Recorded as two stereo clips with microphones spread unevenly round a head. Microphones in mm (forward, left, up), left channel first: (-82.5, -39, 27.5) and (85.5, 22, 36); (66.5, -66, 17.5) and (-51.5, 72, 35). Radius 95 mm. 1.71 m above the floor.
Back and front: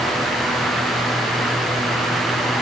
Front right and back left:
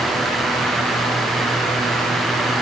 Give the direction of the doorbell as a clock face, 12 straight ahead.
No doorbell in this recording.